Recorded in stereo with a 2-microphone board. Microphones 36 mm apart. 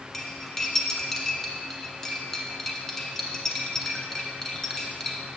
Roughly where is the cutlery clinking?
Centre.